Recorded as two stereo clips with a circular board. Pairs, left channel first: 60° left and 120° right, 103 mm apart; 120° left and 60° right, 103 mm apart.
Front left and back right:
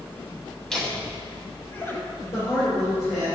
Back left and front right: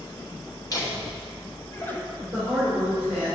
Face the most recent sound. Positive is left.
turn(degrees=15)